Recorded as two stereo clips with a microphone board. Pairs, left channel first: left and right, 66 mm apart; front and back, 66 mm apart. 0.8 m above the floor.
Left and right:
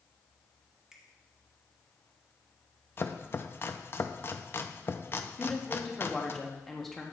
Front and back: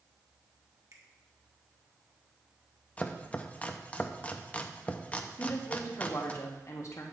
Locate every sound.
0.9 s a finger snap: 170° right, 1.3 m
3.0 s chopping: 55° left, 0.5 m
5.4 s a woman speaking: 5° left, 1.4 m